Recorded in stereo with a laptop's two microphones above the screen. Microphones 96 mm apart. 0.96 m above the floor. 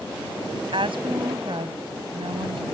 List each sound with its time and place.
0.7 s a woman speaking: 60° right (ahead or behind)